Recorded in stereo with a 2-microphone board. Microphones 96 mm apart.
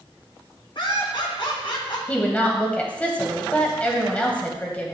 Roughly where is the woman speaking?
Centre.